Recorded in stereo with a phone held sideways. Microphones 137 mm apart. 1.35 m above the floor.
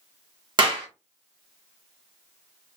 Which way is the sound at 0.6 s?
35° right (ahead or behind).